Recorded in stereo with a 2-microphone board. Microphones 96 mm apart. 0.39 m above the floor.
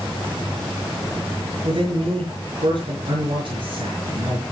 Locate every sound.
1.6 s a man speaking: 55° right (ahead or behind), 6 m